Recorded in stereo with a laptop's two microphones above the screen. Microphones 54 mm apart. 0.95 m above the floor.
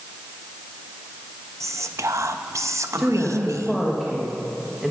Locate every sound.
1.6 s whispering: 65° right (ahead or behind), 0.7 m
3.0 s a woman speaking: centre (ahead or behind), 1.2 m